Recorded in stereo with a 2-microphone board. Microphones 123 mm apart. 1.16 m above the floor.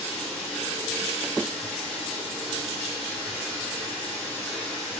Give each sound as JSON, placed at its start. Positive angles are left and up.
{"t": 0.0, "sound": "running water", "side_deg": 0, "distance_m": 2.5}